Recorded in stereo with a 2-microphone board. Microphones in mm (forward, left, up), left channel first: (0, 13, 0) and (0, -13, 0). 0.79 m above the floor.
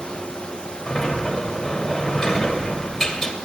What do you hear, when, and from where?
0.9 s a sliding door: 10° left (ahead or behind), 2 m